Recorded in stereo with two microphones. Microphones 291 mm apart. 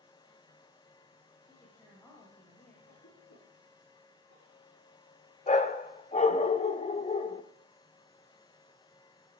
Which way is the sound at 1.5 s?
10° left (ahead or behind).